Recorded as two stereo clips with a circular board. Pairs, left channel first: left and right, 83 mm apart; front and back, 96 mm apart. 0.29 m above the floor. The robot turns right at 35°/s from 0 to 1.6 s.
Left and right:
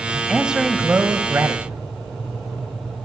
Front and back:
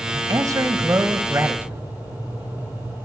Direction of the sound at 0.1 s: Straight behind.